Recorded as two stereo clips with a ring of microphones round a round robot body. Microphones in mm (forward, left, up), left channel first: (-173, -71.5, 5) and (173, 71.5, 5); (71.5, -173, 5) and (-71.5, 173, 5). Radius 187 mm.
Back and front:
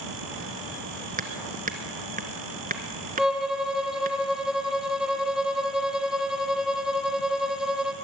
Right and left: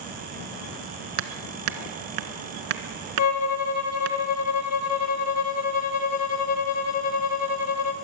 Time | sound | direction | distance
1.2 | hammering | 90° left | 1.5 m
3.2 | a violin | 65° right | 1.3 m